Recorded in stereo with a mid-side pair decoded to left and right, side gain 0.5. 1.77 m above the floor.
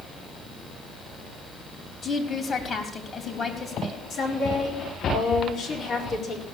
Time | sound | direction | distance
2.0 | a woman speaking | 40° left | 3.5 m
4.1 | a woman speaking | 65° left | 4.5 m